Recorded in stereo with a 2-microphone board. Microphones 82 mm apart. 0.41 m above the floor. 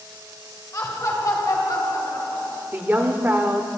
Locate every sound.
0.7 s laughter: 45° left (ahead or behind), 2 m; by 2.6 s 55° left (ahead or behind), 3 m
2.7 s a woman speaking: 25° right (ahead or behind), 1.0 m